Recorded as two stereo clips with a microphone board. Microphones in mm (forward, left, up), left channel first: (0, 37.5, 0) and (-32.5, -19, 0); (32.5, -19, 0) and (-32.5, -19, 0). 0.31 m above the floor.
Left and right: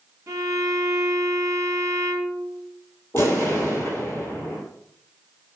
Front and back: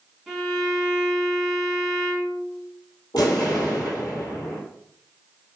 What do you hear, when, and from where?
0.3 s a violin: 90° right, 1.0 m
3.1 s an explosion: 10° left, 1.4 m